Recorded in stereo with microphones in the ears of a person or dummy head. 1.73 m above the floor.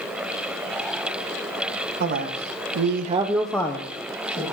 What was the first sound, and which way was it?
A man speaking, 55° right (ahead or behind).